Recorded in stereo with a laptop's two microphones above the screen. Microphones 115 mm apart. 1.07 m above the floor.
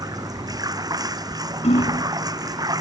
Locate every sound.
0.0 s running water: 35° right (ahead or behind)
1.6 s hammering: 65° left (ahead or behind)